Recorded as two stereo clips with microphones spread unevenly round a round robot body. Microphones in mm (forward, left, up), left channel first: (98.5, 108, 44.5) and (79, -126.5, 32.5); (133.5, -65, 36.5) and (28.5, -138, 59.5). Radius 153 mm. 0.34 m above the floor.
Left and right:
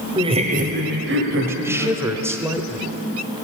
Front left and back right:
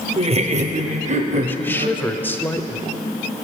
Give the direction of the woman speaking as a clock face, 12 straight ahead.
1 o'clock.